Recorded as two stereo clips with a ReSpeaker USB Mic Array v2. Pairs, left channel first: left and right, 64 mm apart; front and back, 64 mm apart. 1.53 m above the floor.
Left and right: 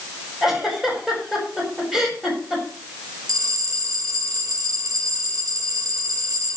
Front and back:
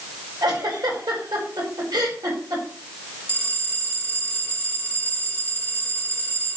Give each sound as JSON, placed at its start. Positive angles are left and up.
{"t": 0.4, "sound": "a giggle", "azimuth_deg": -175, "distance_m": 5.5}
{"t": 3.3, "sound": "a bell", "azimuth_deg": -75, "distance_m": 3.5}